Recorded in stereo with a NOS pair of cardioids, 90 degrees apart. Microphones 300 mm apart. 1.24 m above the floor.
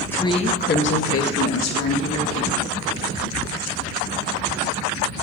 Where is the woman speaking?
5° left, 1.4 m; by 2.6 s 70° left, 3 m.